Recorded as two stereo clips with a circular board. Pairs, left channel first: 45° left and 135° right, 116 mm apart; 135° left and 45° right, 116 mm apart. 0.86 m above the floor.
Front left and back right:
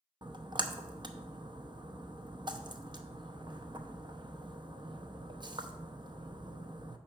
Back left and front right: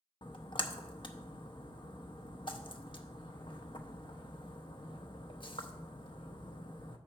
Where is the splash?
Straight behind, 0.7 m.